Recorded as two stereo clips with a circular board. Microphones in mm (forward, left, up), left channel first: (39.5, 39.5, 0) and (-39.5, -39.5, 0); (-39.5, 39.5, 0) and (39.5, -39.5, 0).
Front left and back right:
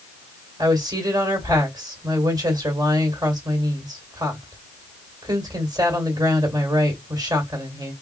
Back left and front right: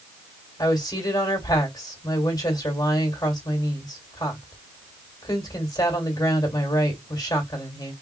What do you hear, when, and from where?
0.6 s a woman speaking: straight behind, 1.8 m